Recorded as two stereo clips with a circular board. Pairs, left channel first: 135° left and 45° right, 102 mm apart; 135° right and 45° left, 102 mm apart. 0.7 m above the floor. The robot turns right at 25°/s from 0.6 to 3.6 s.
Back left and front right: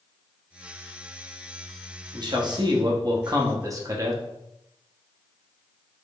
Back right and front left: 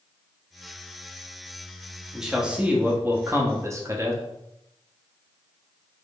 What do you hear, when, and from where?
2.1 s a man speaking: 40° right, 0.8 m; by 4.2 s 5° right, 0.8 m